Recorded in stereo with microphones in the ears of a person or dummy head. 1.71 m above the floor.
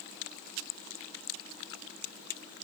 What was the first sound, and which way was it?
Only background noise.